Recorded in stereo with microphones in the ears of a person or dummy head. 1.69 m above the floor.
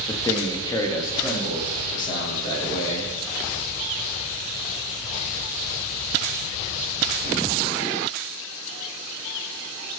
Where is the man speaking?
20° left (ahead or behind), 0.7 m; by 3.1 s 25° left (ahead or behind), 2.5 m.